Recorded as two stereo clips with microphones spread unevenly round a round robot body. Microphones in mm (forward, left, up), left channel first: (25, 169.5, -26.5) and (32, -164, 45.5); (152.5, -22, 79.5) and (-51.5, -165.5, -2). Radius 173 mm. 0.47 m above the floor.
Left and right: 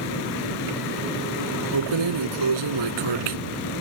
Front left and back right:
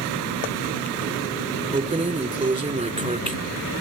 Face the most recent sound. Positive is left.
turn(degrees=-80)